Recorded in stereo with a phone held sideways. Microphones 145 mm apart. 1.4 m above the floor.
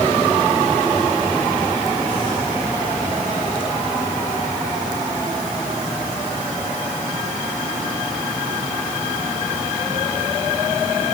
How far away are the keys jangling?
I don't hear keys jangling.